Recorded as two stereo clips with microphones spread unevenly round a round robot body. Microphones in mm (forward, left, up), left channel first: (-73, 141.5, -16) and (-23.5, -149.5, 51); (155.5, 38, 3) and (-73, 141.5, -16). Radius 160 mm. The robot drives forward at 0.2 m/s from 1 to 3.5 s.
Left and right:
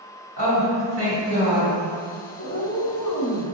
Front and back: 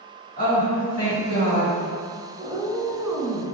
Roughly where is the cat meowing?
Ahead left.